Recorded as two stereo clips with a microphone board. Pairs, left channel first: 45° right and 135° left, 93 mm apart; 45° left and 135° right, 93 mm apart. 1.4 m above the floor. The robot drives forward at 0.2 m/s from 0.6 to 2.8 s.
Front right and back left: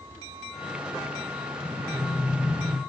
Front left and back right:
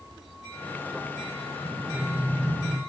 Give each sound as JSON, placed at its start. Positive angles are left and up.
{"t": 1.6, "sound": "breathing", "azimuth_deg": -175, "distance_m": 0.5}